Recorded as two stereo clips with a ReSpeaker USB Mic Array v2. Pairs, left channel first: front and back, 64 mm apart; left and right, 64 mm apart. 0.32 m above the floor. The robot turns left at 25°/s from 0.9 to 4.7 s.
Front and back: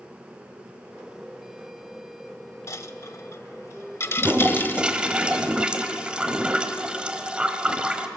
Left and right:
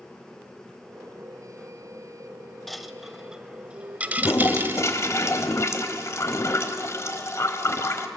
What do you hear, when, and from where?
2.7 s a dropped coin: 5° left, 0.7 m; by 4.9 s 45° right, 0.7 m
4.2 s a toilet flushing: 120° left, 1.3 m; by 8.1 s 110° left, 1.3 m